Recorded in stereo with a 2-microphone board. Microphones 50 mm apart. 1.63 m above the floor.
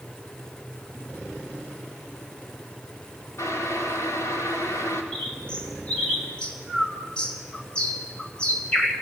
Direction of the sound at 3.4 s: 80° left.